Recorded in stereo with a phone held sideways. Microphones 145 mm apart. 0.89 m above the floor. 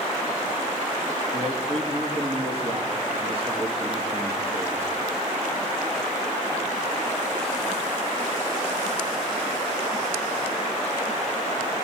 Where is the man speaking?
45° right (ahead or behind), 1.6 m.